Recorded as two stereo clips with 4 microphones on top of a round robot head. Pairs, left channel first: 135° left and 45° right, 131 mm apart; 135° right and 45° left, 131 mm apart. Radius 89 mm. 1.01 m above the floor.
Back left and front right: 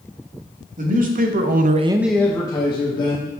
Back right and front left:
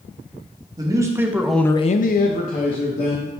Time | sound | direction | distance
0.8 | a man speaking | 20° right | 1.6 m